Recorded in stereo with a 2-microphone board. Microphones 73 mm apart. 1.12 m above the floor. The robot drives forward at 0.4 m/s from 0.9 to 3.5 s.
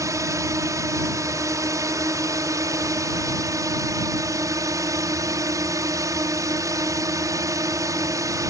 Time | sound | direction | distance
0.0 | a drone | 45° right (ahead or behind) | ?